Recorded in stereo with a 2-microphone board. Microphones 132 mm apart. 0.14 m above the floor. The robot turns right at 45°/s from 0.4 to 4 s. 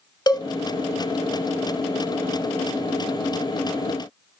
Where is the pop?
I don't hear a pop.